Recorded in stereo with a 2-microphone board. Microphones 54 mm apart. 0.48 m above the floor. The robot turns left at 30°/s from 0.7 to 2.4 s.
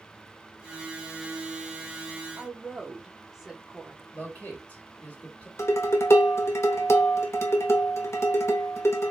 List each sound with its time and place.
2.4 s a woman speaking: 10° right (ahead or behind), 0.7 m
4.1 s a man speaking: 30° left (ahead or behind), 1.2 m
5.6 s dishes clattering: 55° left (ahead or behind), 0.6 m